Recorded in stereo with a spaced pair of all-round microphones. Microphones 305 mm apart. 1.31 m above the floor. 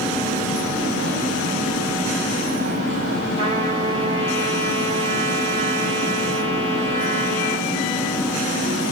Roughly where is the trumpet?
Centre.